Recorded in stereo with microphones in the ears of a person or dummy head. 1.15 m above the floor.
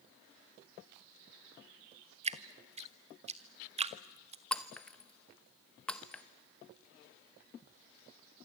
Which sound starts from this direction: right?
Dripping, at 2.2 s.